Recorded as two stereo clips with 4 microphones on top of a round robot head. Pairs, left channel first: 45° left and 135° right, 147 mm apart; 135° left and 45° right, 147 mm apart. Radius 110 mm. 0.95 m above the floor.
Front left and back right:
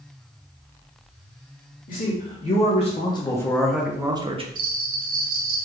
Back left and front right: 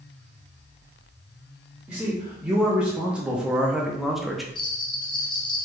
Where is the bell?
165° right, 0.5 m.